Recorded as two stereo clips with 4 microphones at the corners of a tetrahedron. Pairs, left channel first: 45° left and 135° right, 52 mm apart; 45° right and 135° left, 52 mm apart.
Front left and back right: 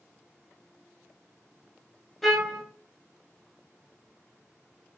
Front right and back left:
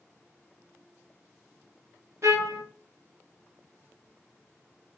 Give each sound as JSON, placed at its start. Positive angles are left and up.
{"t": 2.2, "sound": "a trumpet", "azimuth_deg": 130, "distance_m": 0.6}